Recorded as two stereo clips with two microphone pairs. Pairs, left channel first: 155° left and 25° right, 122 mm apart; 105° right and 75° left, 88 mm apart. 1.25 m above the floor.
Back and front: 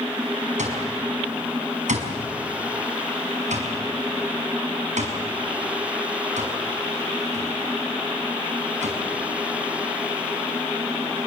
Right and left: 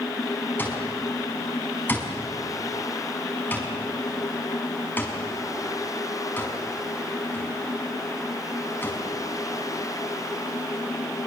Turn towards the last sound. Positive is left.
turn(degrees=-35)